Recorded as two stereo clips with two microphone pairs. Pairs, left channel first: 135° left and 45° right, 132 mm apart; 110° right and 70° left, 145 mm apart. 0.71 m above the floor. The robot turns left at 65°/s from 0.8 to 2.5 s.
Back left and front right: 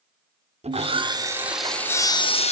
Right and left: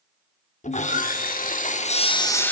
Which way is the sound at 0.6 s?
80° right.